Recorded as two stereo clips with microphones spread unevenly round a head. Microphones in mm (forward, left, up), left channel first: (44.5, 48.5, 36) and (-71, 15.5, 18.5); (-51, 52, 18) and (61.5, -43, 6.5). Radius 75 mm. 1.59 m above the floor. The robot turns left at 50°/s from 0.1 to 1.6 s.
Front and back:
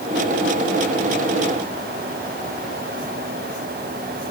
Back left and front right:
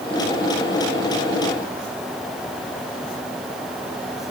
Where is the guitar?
No guitar in this recording.